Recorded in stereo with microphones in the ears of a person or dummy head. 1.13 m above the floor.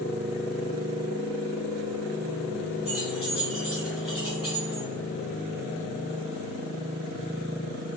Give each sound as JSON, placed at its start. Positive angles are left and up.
{"t": 2.9, "sound": "keys jangling", "side_deg": -5, "distance_m": 1.2}